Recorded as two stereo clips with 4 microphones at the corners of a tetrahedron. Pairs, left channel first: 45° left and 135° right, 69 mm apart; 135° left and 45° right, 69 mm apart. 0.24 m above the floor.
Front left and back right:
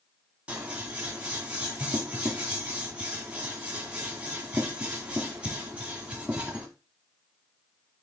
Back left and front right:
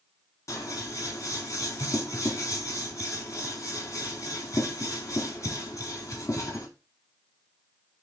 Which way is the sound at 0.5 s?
155° left.